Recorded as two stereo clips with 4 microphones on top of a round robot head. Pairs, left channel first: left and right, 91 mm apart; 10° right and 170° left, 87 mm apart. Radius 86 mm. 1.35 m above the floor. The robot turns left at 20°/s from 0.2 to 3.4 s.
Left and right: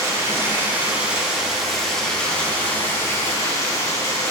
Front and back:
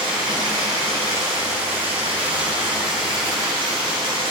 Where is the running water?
150° right, 2 m; by 4.3 s 145° left, 2 m.